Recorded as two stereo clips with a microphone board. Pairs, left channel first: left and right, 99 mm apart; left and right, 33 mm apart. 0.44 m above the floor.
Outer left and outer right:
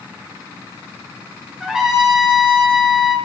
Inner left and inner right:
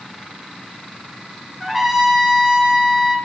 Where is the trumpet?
5° right (ahead or behind), 1.8 m.